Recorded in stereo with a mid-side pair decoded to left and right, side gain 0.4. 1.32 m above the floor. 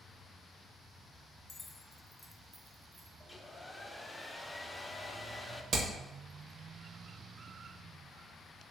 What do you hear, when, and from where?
1.5 s keys jangling: 50° left, 0.6 m; by 3.1 s 30° right, 0.8 m
3.2 s a hair dryer: 15° left, 0.6 m
5.7 s hammering: 55° right, 1.0 m